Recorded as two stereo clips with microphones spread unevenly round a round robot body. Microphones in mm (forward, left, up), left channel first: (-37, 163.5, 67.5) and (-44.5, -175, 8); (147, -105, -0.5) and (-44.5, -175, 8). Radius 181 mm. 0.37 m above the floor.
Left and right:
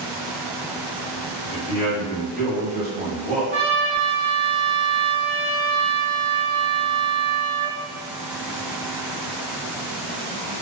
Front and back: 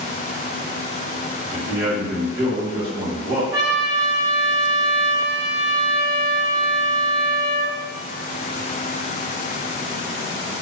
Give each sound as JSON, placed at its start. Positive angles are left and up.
{"t": 1.5, "sound": "a man speaking", "azimuth_deg": 145, "distance_m": 1.1}
{"t": 3.5, "sound": "a trumpet", "azimuth_deg": 155, "distance_m": 1.5}